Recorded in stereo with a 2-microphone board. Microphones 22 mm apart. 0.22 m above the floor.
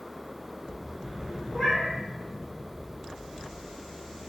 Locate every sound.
1.5 s a cat meowing: 15° right (ahead or behind), 1.5 m